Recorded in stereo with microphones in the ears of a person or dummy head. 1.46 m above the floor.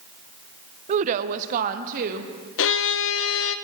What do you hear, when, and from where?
0.9 s a woman speaking: 40° right (ahead or behind), 0.7 m; by 2.3 s 45° right (ahead or behind), 1.6 m
2.6 s a violin: 65° left (ahead or behind), 0.7 m